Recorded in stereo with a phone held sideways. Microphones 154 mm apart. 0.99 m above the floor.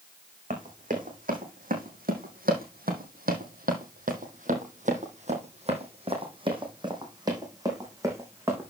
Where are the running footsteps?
55° right (ahead or behind), 3.5 m; by 8.7 s 15° right (ahead or behind), 4 m.